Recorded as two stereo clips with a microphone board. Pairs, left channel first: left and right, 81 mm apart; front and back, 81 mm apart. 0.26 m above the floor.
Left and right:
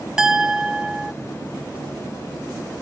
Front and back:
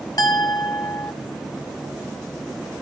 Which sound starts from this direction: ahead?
A clink, at 0.2 s.